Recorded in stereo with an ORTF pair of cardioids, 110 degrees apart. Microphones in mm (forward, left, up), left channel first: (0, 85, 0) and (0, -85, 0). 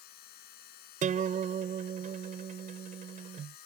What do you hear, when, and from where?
0.0 s a machine running: 70° left
1.0 s a guitar: 50° right